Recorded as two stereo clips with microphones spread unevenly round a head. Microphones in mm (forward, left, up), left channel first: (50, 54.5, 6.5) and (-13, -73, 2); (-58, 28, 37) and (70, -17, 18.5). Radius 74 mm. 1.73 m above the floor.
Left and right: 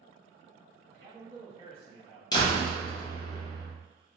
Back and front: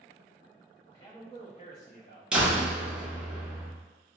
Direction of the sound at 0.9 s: 140° right.